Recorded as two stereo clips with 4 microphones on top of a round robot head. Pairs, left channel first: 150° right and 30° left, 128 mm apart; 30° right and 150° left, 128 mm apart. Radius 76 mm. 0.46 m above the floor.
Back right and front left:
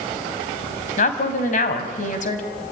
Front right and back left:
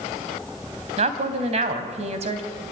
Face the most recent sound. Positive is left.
turn(degrees=-175)